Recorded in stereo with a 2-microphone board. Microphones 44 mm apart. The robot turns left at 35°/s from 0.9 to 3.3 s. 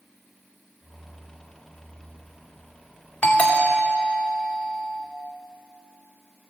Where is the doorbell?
35° left (ahead or behind), 2 m.